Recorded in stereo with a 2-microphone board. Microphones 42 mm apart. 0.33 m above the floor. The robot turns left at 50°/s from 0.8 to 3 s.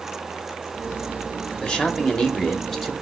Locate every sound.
1.6 s a man speaking: 25° left (ahead or behind), 0.9 m; by 2.9 s 5° left (ahead or behind), 0.9 m